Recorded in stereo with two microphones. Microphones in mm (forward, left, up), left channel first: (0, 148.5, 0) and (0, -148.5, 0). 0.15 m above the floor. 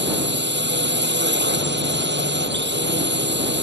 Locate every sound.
0.0 s a drone: 35° right (ahead or behind)